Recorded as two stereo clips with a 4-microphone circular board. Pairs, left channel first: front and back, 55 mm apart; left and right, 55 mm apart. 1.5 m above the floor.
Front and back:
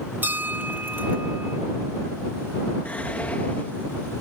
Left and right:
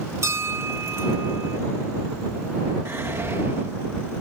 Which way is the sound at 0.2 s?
125° right.